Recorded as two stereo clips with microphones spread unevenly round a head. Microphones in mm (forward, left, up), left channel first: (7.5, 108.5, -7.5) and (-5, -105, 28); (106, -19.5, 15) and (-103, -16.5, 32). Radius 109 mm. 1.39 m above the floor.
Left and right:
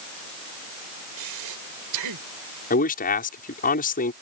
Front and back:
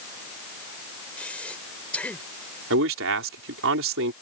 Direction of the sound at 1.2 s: 85° right.